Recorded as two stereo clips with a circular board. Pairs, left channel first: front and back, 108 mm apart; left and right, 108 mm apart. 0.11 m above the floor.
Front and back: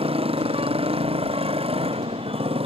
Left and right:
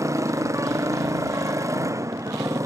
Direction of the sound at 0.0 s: 150° right.